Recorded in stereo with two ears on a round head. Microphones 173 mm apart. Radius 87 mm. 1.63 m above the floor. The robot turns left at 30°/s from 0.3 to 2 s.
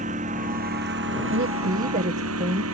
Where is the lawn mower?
40° right (ahead or behind); by 2.7 s 85° right.